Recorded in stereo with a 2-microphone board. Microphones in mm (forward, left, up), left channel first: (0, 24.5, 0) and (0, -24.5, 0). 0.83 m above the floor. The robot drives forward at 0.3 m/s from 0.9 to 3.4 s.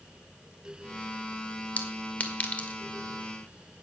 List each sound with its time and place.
1.8 s a clink: 35° left (ahead or behind), 1.8 m; by 2.8 s 30° left (ahead or behind), 2 m